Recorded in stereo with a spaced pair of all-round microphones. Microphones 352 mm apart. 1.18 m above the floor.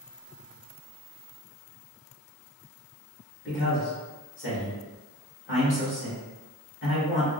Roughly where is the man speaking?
Left.